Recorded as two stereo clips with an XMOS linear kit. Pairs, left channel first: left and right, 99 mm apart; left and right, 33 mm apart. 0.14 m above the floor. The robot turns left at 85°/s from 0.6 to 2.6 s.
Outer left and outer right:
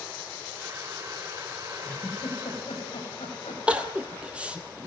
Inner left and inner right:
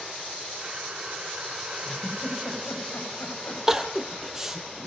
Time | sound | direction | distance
1.9 | a giggle | 10° left (ahead or behind) | 8.5 m
3.7 | crying | 10° right (ahead or behind) | 1.8 m